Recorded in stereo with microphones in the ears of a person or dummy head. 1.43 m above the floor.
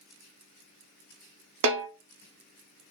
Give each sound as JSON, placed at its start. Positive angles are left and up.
{"t": 1.6, "sound": "a snare drum", "side_deg": -70, "distance_m": 0.6}